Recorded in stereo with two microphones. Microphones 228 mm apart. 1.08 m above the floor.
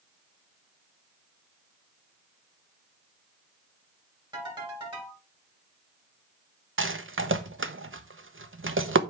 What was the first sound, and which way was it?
A ringtone, 20° right (ahead or behind).